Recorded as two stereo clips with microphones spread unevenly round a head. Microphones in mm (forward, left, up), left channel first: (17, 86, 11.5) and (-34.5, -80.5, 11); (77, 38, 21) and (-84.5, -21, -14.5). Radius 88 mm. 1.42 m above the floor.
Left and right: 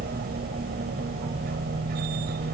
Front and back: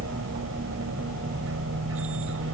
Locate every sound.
0.0 s a machine running: 145° right